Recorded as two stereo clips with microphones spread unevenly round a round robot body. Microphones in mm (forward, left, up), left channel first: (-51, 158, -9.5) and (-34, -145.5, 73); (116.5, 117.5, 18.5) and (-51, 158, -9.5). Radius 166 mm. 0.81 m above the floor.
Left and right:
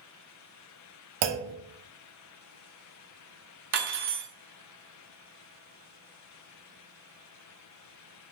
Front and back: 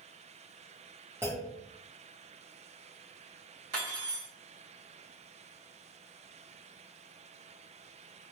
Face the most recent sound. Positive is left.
turn(degrees=-140)